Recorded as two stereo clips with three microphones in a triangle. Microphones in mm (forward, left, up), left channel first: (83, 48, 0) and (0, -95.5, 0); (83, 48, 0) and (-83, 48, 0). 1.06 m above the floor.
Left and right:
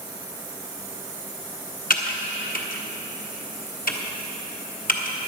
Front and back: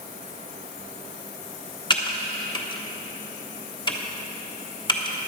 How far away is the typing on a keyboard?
About 1.1 m.